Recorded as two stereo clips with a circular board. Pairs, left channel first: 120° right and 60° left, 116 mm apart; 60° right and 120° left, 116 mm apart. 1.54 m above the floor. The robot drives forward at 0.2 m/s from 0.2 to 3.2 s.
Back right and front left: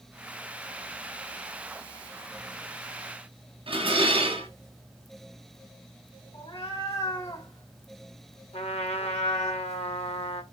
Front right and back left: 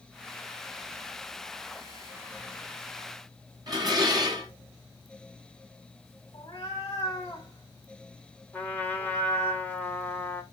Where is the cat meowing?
110° right, 2.0 m.